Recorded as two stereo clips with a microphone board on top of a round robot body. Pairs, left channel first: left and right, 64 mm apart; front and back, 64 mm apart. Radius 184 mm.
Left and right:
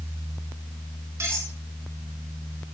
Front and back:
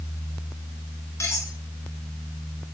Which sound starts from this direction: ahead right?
Cutlery clinking, at 1.2 s.